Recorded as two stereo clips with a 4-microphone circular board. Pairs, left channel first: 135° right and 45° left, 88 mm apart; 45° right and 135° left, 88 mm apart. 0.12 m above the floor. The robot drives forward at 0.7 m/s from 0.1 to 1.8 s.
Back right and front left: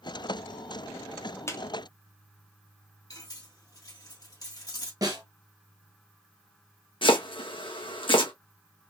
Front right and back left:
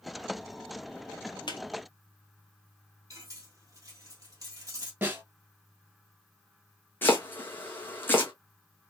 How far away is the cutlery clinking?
About 1.6 m.